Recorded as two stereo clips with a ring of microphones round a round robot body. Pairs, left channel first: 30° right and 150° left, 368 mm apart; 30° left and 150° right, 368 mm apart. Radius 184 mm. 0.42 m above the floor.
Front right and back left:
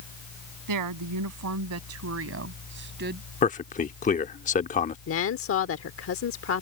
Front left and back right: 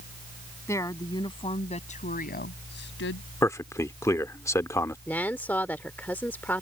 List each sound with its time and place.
0.7 s a woman speaking: 110° left; by 3.3 s 85° left
3.4 s a man speaking: 35° right
5.1 s a woman speaking: 50° right